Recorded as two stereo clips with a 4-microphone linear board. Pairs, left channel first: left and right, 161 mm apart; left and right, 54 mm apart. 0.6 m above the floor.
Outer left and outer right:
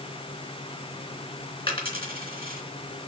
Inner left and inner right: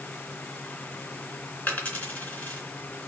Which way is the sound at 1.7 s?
35° left (ahead or behind).